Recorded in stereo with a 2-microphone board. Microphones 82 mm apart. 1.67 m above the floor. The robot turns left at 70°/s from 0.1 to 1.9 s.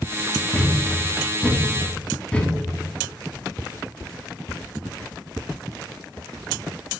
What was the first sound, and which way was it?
A thud, 15° left (ahead or behind).